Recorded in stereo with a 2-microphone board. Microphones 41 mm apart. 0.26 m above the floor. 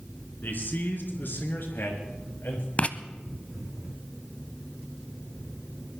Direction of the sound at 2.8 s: 35° left (ahead or behind).